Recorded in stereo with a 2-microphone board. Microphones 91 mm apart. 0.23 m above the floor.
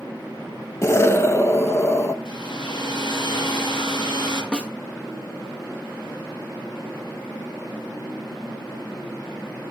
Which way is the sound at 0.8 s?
30° left (ahead or behind).